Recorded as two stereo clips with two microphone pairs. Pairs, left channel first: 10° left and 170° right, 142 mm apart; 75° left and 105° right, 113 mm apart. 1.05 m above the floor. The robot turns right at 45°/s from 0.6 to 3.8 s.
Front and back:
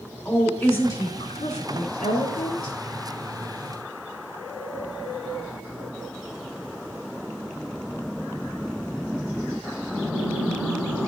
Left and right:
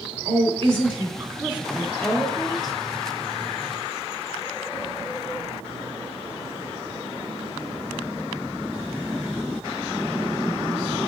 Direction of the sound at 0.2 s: 70° right.